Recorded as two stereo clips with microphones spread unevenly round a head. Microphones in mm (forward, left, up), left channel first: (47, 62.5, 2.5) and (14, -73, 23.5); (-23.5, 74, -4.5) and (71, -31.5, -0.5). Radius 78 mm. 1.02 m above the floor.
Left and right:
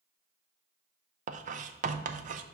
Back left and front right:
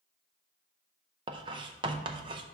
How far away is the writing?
About 0.6 m.